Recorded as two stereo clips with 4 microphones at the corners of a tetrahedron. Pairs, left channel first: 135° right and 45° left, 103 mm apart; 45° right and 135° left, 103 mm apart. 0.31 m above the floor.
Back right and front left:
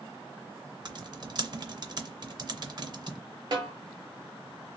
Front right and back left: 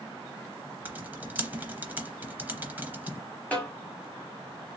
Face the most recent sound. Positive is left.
turn(degrees=25)